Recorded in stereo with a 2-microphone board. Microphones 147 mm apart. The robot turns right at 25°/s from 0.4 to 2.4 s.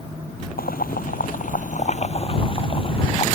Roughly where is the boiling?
Left.